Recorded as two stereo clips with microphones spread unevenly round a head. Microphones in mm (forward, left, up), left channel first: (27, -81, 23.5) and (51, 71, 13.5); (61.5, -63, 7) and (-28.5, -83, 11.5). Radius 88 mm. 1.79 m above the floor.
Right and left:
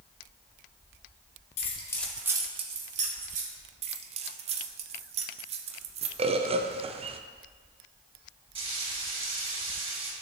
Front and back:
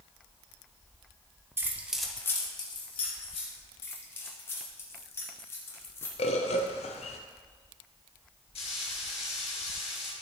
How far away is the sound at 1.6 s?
About 1.2 m.